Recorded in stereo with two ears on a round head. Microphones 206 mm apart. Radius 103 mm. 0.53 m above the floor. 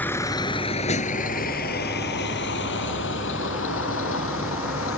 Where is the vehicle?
10° left (ahead or behind); by 5.0 s 70° left (ahead or behind).